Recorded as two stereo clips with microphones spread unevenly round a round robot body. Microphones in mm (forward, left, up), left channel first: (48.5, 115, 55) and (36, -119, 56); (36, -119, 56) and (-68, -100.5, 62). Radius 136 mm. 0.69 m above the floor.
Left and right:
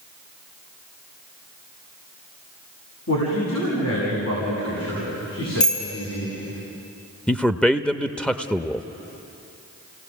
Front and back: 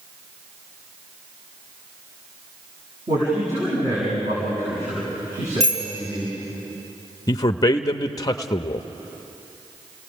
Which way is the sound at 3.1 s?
115° left.